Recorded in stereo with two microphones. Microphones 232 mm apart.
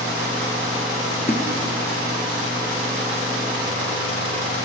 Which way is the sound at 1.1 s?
30° left (ahead or behind).